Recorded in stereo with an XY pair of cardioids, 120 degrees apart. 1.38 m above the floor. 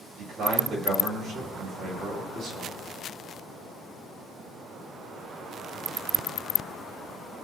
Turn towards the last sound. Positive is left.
turn(degrees=-65)